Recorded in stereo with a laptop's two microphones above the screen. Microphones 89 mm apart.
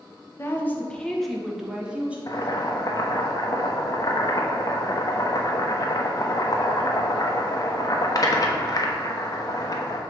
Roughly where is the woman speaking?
Left.